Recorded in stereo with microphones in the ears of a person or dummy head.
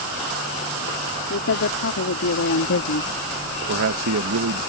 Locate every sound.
1.3 s a woman speaking: 65° left (ahead or behind); by 3.2 s 55° left (ahead or behind)
3.7 s a man speaking: 65° right (ahead or behind)